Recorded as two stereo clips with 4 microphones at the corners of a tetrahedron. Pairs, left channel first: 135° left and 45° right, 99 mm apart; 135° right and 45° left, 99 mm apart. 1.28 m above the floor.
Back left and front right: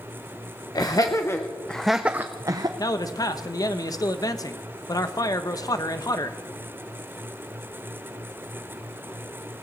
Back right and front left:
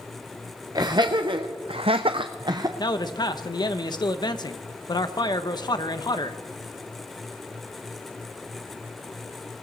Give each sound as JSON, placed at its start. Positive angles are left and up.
{"t": 0.8, "sound": "laughter", "azimuth_deg": 90, "distance_m": 1.0}
{"t": 2.8, "sound": "a man speaking", "azimuth_deg": -175, "distance_m": 1.0}